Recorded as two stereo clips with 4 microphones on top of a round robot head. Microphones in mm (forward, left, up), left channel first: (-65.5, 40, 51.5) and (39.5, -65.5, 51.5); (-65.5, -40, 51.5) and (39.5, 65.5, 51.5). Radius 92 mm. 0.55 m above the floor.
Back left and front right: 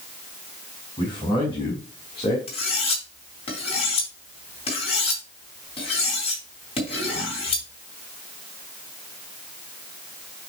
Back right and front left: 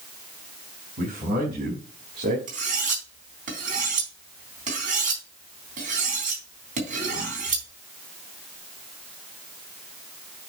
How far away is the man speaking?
About 5 m.